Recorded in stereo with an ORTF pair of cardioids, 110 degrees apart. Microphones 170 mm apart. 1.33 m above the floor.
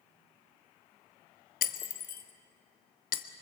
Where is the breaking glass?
60° left, 1.3 m.